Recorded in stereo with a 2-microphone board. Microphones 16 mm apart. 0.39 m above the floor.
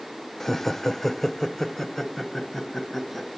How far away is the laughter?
About 0.8 m.